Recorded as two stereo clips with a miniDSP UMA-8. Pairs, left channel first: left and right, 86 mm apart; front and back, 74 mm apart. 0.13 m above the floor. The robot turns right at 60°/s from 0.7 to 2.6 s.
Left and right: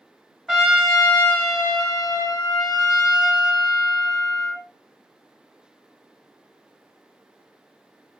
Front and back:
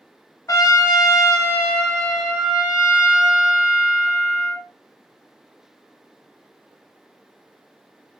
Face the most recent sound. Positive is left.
turn(degrees=110)